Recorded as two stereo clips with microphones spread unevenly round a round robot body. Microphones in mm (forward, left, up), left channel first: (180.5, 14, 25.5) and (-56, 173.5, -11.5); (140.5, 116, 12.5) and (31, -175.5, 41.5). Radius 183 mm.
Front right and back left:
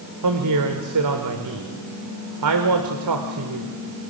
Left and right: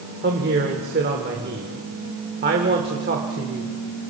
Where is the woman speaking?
Straight behind, 2 m.